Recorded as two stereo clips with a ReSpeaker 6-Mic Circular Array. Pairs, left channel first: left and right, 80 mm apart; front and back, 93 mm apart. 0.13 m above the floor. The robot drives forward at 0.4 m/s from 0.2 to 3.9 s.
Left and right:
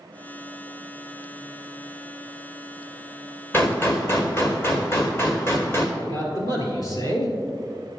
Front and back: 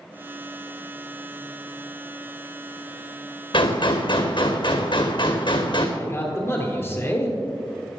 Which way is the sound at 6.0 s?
60° left.